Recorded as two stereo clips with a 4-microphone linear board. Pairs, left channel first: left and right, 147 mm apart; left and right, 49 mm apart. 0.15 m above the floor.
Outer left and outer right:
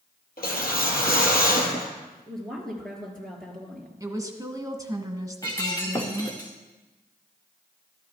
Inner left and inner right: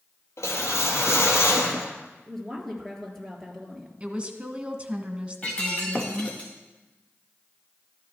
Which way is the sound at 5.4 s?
20° left (ahead or behind).